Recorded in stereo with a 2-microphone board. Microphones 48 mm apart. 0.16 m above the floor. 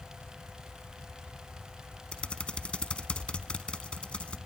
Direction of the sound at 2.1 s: 20° left (ahead or behind).